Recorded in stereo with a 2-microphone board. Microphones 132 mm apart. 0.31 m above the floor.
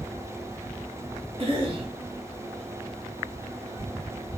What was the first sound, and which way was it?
A cough, 50° right (ahead or behind).